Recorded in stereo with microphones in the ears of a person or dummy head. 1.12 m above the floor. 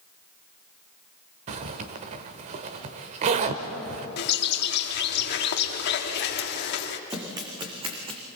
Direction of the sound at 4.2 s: 55° left (ahead or behind).